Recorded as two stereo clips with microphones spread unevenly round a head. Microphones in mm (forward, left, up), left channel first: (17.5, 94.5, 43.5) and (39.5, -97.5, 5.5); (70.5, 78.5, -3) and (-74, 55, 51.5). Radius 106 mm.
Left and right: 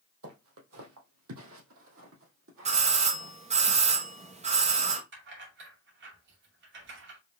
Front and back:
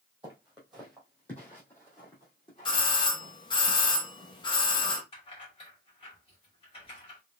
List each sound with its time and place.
0.2 s footsteps: 100° right, 2.5 m; by 3.3 s 60° right, 3 m
2.6 s a doorbell: 40° right, 1.0 m
5.1 s keys jangling: 55° right, 2 m